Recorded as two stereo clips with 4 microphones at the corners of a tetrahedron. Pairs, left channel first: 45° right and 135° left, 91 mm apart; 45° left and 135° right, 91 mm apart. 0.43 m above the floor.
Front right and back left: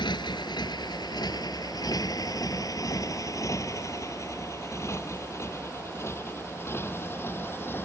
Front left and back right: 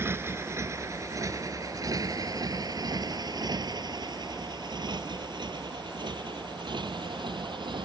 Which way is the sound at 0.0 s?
75° right.